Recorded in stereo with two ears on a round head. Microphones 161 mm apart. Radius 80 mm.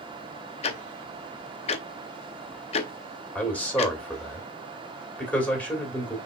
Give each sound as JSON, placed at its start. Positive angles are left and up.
{"t": 0.6, "sound": "ticking", "side_deg": 35, "distance_m": 0.6}
{"t": 3.4, "sound": "a man speaking", "side_deg": 10, "distance_m": 2.0}